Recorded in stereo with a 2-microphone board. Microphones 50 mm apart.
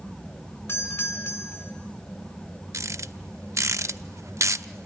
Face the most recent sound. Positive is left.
turn(degrees=-90)